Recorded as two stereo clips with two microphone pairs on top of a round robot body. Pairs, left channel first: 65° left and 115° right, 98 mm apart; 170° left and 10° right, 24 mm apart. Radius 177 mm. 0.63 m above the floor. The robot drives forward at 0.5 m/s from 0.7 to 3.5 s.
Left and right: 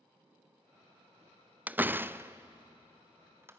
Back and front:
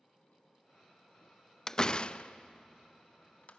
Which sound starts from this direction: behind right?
A door slam, at 1.7 s.